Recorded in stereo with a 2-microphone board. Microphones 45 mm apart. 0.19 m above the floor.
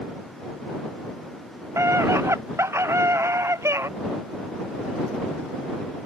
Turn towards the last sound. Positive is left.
turn(degrees=-75)  # may be behind; listen again after turning